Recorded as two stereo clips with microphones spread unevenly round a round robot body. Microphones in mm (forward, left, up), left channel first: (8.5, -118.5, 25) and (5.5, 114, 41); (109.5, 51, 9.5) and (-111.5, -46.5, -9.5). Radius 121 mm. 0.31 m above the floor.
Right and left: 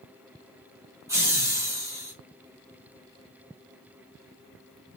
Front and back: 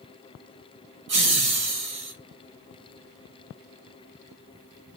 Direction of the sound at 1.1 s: 170° left.